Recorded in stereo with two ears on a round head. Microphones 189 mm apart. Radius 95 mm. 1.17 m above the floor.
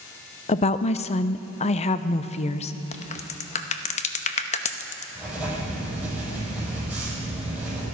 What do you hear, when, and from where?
0.5 s a woman speaking: 30° left (ahead or behind), 0.5 m
2.9 s a crack: 35° left (ahead or behind), 0.8 m
5.2 s writing: 5° right (ahead or behind), 6.5 m